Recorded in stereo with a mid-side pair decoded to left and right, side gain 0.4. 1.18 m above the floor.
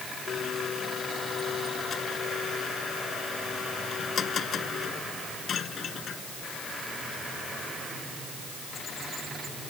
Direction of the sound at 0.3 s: 60° left.